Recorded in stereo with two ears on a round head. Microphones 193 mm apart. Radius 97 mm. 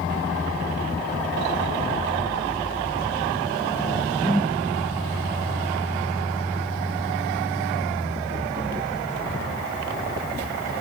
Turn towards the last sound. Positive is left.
turn(degrees=0)  # may be behind; listen again after turning